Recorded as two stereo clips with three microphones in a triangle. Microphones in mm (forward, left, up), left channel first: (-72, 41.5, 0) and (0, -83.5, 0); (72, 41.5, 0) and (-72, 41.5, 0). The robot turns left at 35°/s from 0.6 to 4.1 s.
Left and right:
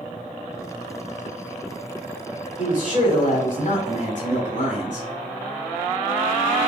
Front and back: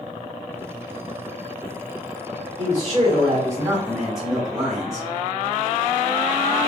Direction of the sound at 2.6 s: 150° left.